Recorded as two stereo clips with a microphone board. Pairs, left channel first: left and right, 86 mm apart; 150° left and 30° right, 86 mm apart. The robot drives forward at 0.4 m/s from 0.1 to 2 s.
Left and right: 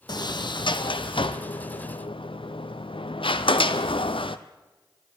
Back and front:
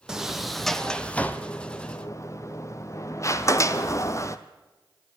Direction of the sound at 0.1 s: 55° left.